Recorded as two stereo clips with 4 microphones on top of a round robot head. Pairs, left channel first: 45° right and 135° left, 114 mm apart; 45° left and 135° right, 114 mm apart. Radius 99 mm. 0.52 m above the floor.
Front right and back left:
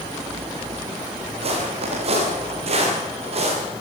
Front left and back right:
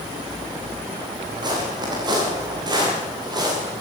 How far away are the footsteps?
About 6.5 m.